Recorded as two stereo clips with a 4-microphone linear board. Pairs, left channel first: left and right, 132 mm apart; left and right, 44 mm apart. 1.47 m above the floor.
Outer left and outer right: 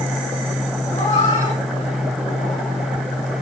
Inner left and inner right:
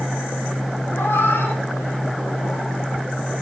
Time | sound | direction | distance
0.9 | a cat meowing | 75° left (ahead or behind) | 7.5 m